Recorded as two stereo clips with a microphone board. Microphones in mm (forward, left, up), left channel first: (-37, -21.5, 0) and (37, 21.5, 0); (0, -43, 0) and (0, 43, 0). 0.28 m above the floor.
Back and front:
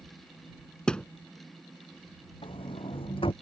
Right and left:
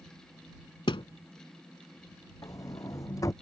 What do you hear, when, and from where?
0.9 s a thud: 70° right
2.4 s a sliding door: 140° right